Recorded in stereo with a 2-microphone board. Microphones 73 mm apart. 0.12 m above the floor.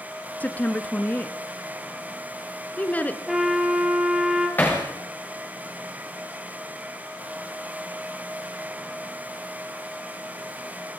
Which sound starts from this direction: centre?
A trumpet, at 3.3 s.